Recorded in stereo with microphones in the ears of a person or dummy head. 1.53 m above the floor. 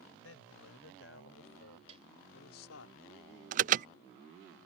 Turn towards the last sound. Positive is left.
turn(degrees=-45)  # may be behind; listen again after turning